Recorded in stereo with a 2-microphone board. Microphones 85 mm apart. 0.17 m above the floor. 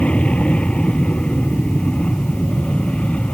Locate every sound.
0.0 s an aircraft: 15° left (ahead or behind)